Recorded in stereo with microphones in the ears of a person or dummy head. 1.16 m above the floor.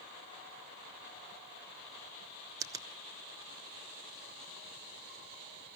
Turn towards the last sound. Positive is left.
turn(degrees=-15)  # may be behind; listen again after turning